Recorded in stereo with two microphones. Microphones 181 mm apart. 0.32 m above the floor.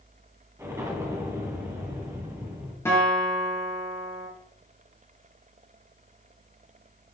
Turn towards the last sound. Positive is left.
turn(degrees=15)  # may be behind; listen again after turning